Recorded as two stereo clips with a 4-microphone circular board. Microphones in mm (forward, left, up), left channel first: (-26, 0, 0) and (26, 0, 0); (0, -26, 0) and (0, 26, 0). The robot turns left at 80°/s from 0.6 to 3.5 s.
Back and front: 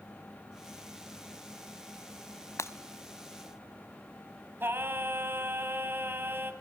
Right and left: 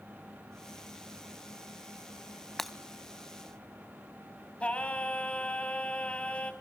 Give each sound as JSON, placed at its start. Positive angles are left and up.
{"t": 2.6, "sound": "breaking glass", "azimuth_deg": -170, "distance_m": 1.0}
{"t": 4.6, "sound": "singing", "azimuth_deg": -25, "distance_m": 2.5}